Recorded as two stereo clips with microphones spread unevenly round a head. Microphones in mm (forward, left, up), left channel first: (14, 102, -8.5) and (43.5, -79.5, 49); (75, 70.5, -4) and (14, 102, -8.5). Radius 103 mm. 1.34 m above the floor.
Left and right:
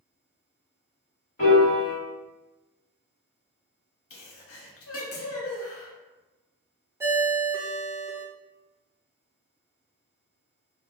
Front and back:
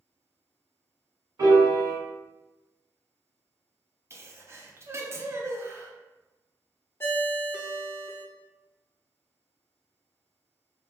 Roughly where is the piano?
Behind.